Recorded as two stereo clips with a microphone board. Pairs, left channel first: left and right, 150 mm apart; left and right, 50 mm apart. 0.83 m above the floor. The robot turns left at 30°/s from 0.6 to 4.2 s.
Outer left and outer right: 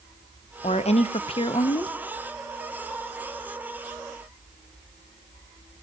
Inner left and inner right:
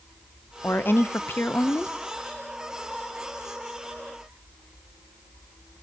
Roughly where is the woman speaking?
Left.